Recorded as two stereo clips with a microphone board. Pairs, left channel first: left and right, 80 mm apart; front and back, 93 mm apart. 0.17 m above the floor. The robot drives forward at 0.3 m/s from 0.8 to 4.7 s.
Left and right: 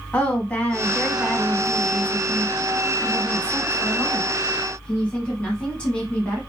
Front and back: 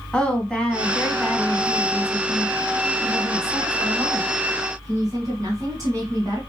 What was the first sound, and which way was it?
A woman speaking, 55° left.